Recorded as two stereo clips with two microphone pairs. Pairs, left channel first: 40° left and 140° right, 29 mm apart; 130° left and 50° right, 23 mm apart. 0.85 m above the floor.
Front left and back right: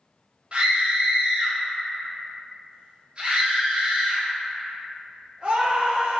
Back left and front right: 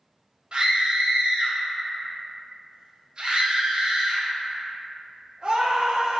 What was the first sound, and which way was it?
A scream, 90° right.